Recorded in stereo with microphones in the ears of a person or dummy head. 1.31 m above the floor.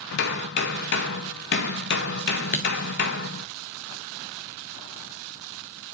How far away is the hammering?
About 0.6 m.